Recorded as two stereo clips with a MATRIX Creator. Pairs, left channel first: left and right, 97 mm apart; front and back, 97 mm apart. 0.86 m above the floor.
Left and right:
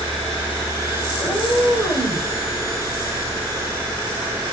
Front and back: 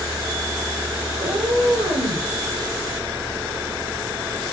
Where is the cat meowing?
175° right, 7.5 m; by 2.3 s 170° right, 7.5 m.